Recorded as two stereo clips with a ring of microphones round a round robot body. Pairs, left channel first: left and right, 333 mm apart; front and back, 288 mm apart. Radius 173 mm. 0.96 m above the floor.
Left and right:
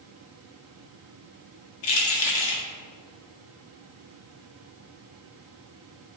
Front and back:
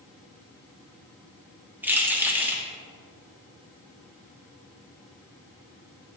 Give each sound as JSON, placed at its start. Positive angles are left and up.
{"t": 1.8, "sound": "keys jangling", "azimuth_deg": 95, "distance_m": 1.6}